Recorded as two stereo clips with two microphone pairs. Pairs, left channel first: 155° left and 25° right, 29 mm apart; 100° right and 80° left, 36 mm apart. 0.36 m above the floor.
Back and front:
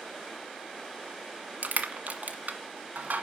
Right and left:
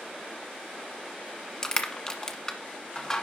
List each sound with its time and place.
1.6 s crushing: 25° right, 1.4 m